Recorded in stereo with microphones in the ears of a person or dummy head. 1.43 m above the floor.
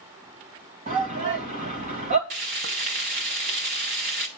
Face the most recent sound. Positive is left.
turn(degrees=-35)  # may be behind; listen again after turning